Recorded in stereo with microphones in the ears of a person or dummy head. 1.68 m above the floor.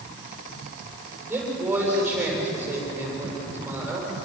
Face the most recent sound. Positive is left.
turn(degrees=-10)  # may be behind; listen again after turning